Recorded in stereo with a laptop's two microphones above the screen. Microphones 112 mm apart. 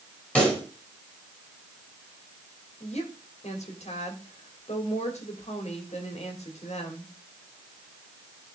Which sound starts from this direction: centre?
A pop, at 0.3 s.